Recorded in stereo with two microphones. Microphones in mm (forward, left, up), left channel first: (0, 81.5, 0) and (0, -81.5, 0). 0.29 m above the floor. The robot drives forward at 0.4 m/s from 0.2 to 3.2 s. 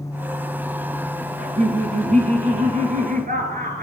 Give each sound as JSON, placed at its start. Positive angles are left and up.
{"t": 1.4, "sound": "laughter", "side_deg": -55, "distance_m": 2.5}